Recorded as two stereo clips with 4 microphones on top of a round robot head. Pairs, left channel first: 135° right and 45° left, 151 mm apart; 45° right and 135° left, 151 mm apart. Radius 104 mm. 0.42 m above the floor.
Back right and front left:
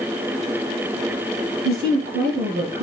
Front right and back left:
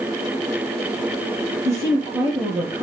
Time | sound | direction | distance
1.6 | a woman speaking | 60° left | 6 m